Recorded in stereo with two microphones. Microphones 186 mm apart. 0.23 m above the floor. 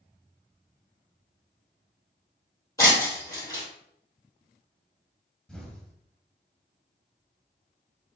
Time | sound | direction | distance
2.8 | breaking glass | 15° left (ahead or behind) | 2.5 m
5.5 | an explosion | 5° left (ahead or behind) | 1.1 m